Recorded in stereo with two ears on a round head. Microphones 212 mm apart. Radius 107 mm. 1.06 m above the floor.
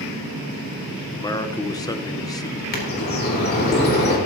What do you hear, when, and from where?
1.1 s a man speaking: 15° left (ahead or behind), 0.9 m
2.7 s a bird: 40° left (ahead or behind), 3 m